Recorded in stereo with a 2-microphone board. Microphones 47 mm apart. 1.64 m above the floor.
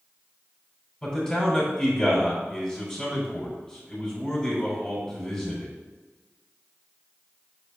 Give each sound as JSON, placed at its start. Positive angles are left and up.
{"t": 1.0, "sound": "a man speaking", "side_deg": 15, "distance_m": 3.0}